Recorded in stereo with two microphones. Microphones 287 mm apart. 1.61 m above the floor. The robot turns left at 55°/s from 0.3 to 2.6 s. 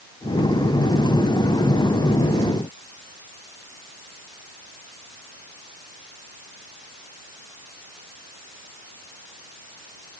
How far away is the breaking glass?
No breaking glass in this recording.